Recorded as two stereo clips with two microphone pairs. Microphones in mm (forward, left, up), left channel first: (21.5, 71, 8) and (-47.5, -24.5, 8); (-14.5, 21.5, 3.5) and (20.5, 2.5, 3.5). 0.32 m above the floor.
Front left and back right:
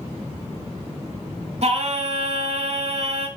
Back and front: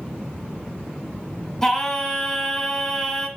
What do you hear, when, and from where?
1.6 s singing: 130° right, 1.1 m